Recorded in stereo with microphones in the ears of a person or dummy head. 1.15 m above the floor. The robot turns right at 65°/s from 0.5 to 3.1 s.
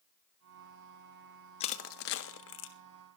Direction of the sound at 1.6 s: 35° left (ahead or behind).